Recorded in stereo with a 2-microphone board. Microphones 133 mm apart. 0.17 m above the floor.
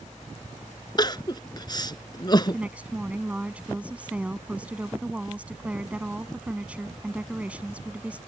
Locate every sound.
1.0 s crying: 30° left (ahead or behind)
2.5 s a woman speaking: 10° right (ahead or behind)